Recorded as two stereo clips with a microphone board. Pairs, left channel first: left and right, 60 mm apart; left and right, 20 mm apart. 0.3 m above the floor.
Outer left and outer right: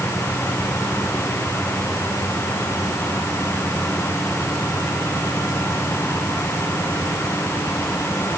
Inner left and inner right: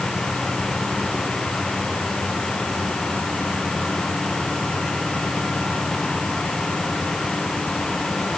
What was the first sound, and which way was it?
Only background noise.